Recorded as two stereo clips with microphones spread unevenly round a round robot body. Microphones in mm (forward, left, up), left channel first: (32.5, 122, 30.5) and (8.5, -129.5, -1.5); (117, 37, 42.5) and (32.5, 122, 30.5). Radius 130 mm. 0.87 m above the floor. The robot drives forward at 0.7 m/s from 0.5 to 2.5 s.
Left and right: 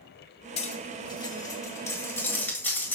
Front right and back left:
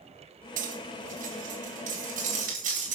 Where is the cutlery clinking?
150° left, 1.1 m; by 3.0 s 165° left, 2.5 m.